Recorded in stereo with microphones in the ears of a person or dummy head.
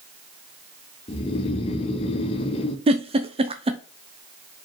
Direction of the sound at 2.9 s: 30° right (ahead or behind).